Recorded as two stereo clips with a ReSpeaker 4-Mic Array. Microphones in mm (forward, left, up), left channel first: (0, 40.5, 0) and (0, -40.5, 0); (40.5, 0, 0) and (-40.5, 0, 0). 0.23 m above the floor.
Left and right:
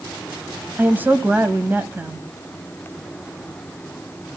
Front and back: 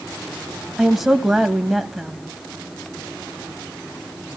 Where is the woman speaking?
95° right, 1.3 m.